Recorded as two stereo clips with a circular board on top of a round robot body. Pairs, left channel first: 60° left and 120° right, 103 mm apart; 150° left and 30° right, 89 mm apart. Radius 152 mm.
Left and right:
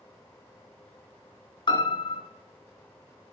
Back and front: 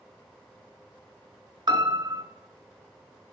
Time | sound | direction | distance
1.7 | a piano | 10° left | 2.5 m